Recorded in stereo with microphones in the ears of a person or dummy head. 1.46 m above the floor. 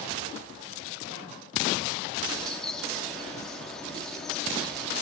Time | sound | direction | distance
2.3 | a bird | 10° left (ahead or behind) | 3.5 m